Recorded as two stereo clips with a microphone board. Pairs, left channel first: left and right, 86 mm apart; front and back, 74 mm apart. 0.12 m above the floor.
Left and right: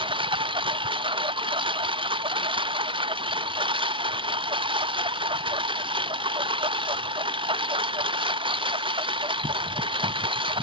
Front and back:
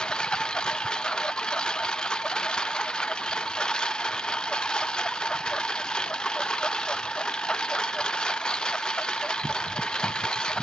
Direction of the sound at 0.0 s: 80° right.